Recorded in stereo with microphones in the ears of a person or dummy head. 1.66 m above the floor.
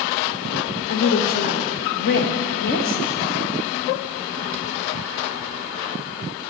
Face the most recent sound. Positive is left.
turn(degrees=50)  # may be behind; listen again after turning